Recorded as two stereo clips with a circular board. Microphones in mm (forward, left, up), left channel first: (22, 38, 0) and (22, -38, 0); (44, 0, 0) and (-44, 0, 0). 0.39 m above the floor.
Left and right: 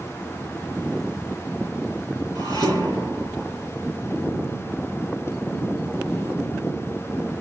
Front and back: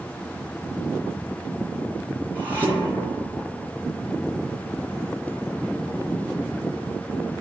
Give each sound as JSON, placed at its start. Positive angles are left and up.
{"t": 2.4, "sound": "dishes clattering", "azimuth_deg": 110, "distance_m": 5.5}